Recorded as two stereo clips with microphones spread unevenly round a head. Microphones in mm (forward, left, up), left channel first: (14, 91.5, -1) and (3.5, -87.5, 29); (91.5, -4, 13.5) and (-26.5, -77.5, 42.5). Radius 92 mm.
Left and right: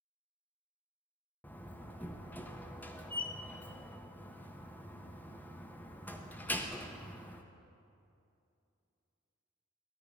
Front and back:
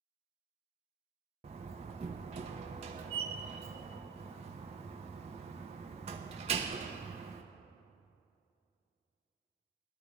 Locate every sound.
1.4 s a door slam: 175° left, 0.7 m